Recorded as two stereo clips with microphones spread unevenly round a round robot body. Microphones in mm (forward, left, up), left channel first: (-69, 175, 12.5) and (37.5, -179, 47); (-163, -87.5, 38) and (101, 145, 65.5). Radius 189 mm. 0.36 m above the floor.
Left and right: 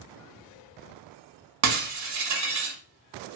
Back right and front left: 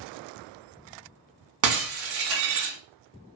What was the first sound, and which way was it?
Breaking glass, 15° right.